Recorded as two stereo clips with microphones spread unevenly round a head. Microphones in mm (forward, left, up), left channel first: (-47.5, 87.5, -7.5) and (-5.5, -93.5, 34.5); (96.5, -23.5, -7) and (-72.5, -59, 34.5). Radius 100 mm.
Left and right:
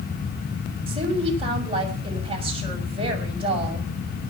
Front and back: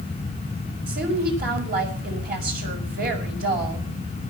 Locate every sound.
0.9 s a woman speaking: 135° right, 6 m